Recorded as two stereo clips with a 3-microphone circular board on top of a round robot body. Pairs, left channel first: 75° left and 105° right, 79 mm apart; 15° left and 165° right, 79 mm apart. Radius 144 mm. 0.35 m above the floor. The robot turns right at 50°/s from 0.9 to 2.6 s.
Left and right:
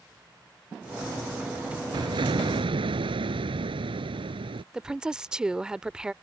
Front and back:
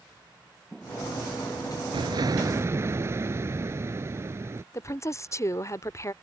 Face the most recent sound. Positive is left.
turn(degrees=-25)